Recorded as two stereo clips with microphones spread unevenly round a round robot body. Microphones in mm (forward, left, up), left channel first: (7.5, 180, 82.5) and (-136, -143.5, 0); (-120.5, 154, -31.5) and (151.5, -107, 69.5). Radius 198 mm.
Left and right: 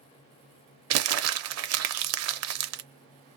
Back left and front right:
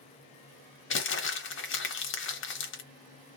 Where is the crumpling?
165° right, 0.6 m.